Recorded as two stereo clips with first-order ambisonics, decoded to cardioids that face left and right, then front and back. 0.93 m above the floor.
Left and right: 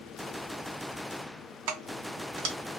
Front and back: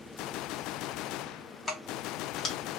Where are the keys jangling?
75° right, 0.9 m.